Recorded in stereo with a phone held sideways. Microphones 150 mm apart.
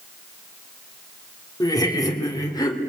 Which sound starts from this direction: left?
Laughter, at 1.6 s.